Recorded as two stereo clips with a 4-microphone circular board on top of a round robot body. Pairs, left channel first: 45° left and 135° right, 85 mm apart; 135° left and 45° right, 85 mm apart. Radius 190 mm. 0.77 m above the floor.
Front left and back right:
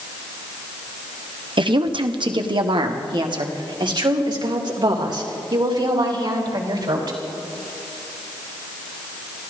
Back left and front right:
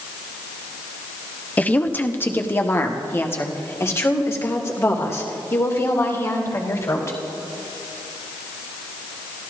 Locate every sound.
1.6 s a woman speaking: 155° right, 1.1 m; by 7.2 s 170° right, 4 m